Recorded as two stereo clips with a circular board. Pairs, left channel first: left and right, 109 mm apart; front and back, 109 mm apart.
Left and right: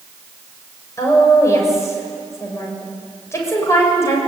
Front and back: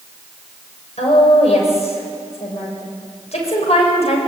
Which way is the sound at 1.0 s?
25° left.